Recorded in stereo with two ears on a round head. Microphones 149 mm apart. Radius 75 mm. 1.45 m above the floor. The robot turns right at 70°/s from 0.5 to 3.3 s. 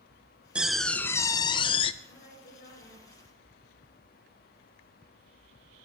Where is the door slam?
10° right, 0.5 m; by 1.9 s 85° left, 0.5 m.